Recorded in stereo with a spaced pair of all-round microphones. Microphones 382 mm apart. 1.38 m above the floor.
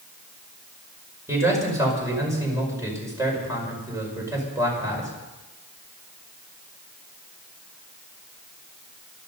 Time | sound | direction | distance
1.3 | a man speaking | 10° right (ahead or behind) | 5.5 m